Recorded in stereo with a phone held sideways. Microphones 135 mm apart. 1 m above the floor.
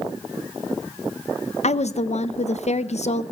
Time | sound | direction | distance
1.6 | a woman speaking | 55° left (ahead or behind) | 0.5 m